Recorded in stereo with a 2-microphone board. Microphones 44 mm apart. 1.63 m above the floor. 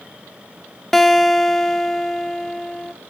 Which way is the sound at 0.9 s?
5° left (ahead or behind).